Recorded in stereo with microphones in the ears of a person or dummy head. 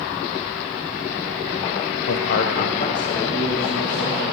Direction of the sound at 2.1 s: 75° left (ahead or behind).